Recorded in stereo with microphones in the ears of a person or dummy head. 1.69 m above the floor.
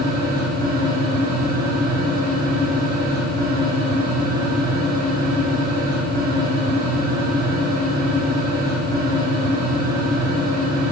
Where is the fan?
60° right (ahead or behind), 1.0 m.